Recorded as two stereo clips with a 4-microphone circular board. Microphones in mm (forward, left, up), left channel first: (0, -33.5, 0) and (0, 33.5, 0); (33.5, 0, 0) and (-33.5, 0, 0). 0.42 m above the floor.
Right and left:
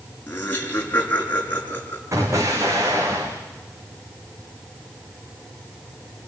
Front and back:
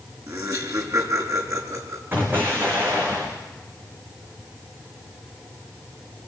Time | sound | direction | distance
0.3 | laughter | 155° right | 6 m
2.1 | an explosion | 125° left | 5.5 m